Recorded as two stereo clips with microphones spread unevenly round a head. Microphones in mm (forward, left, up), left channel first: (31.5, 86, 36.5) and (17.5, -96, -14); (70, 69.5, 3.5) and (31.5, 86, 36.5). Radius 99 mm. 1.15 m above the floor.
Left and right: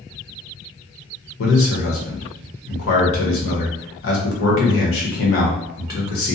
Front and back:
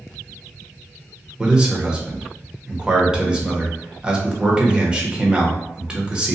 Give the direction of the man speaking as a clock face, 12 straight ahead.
10 o'clock.